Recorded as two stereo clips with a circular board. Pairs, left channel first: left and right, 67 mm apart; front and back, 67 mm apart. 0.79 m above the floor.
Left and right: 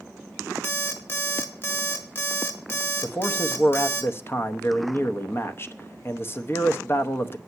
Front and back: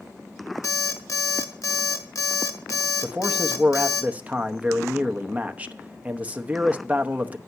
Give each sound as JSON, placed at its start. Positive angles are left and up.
{"t": 0.6, "sound": "an alarm clock", "azimuth_deg": 35, "distance_m": 1.6}
{"t": 3.0, "sound": "a man speaking", "azimuth_deg": 125, "distance_m": 0.8}